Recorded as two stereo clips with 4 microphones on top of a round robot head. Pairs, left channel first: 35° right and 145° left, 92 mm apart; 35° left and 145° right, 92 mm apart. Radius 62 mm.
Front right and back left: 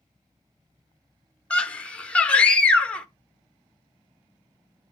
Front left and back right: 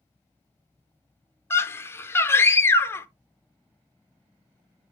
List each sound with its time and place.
1.5 s a scream: 25° left, 0.7 m